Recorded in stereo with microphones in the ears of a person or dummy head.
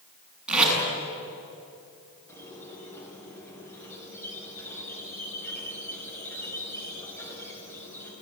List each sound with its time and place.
0.5 s tape being pulled: 5° right (ahead or behind), 6.5 m
2.3 s a squeak: 15° left (ahead or behind), 6 m